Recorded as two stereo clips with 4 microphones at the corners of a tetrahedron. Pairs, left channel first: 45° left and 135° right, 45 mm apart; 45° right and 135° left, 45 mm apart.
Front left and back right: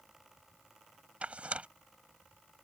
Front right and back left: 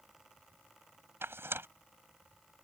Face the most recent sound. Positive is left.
turn(degrees=165)